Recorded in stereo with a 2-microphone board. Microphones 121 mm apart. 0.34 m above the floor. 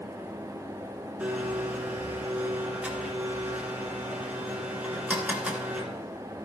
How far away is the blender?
About 1.9 m.